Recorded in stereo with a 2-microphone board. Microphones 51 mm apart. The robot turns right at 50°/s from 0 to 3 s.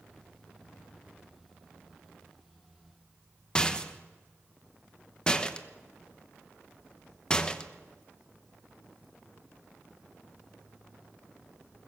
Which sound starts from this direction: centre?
A rattle, at 3.5 s.